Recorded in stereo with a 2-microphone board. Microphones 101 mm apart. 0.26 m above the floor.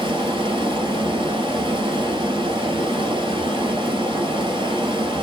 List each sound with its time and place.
0.0 s running water: 50° right (ahead or behind), 1.6 m